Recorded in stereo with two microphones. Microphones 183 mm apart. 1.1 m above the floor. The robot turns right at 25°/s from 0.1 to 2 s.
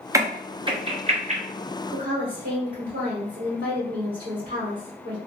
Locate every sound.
0.1 s a crack: 15° right (ahead or behind), 0.6 m; by 1.4 s 40° right (ahead or behind), 0.6 m
1.9 s a woman speaking: 60° right (ahead or behind), 1.9 m